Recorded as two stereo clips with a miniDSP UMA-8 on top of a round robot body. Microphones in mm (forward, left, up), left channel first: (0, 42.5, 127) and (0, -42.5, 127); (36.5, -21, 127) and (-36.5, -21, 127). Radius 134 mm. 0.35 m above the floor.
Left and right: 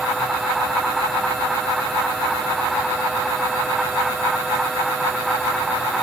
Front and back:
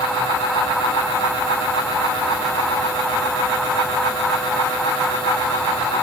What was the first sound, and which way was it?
Only background noise.